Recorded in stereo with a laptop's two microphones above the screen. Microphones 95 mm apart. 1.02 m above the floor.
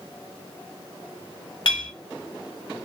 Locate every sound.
1.6 s a clink: 60° left (ahead or behind), 1.3 m